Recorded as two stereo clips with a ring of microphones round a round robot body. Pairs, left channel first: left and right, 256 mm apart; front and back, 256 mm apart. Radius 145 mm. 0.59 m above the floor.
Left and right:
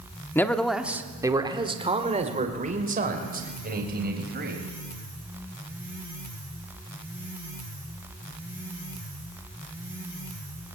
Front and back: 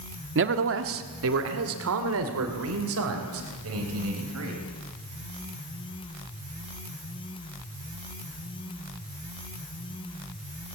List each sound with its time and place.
0.3 s a man speaking: 170° left, 1.6 m; by 4.6 s 140° right, 4.5 m